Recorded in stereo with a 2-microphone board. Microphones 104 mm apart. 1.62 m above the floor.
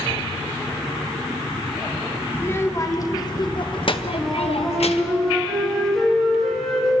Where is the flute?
5° left (ahead or behind), 6.5 m.